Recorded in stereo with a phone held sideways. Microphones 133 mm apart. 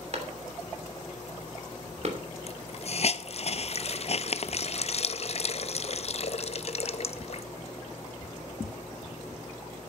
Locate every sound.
0.1 s a clap: 55° right (ahead or behind), 2.5 m
2.5 s a hiss: 50° left (ahead or behind), 0.6 m